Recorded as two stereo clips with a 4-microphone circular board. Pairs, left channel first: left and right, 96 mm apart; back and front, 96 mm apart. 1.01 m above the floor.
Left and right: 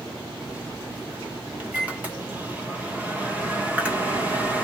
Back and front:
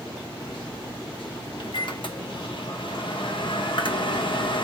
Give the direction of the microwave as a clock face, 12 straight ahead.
5 o'clock.